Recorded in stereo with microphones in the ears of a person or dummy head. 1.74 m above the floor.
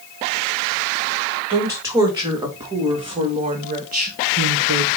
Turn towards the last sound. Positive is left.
turn(degrees=-60)  # may be behind; listen again after turning